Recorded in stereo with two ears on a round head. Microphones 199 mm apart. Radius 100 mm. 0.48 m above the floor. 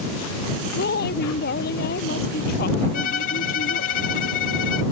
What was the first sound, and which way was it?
A woman speaking, 45° left (ahead or behind).